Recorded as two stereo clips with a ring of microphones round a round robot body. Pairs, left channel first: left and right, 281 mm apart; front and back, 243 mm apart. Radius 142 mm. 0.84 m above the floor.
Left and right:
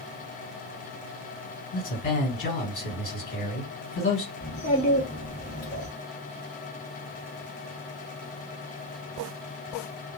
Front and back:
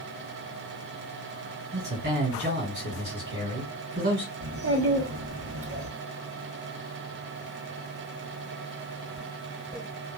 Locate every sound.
1.7 s a man speaking: 150° left, 2 m
4.4 s a child speaking: 155° left, 1.4 m